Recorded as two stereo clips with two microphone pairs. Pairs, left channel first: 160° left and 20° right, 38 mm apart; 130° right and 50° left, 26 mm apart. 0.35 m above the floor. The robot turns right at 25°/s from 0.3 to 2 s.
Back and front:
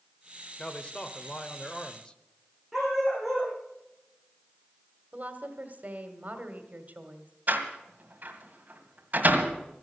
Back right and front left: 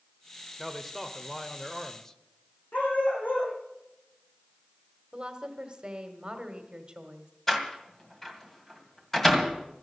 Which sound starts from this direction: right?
A dog barking, at 2.7 s.